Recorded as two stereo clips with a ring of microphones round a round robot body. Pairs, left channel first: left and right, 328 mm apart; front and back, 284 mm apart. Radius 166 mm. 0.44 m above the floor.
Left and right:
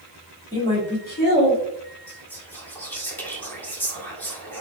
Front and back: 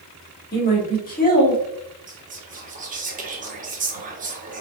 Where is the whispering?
170° left, 1.0 m.